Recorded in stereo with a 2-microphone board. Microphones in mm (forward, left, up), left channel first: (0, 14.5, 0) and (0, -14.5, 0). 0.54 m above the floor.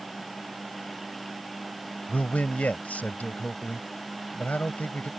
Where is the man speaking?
60° left (ahead or behind).